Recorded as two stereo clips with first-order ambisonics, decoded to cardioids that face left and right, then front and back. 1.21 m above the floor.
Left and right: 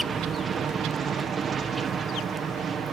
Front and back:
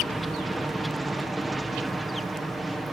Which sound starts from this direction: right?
An aircraft, at 0.0 s.